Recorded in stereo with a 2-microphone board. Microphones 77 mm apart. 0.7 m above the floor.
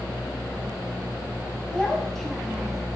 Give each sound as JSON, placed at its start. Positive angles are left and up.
{"t": 1.7, "sound": "a child speaking", "side_deg": 10, "distance_m": 2.5}